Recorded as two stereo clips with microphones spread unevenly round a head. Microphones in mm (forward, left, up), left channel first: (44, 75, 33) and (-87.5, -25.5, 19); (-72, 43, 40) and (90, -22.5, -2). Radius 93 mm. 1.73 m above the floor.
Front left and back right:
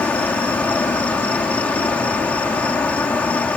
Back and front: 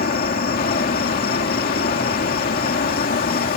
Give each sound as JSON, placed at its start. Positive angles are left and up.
{"t": 0.0, "sound": "an insect", "azimuth_deg": 120}